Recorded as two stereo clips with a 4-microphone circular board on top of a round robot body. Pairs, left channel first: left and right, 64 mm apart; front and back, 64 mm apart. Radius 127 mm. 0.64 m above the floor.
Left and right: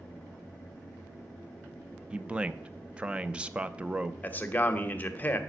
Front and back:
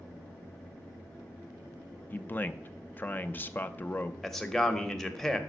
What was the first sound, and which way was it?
A man speaking, 30° right.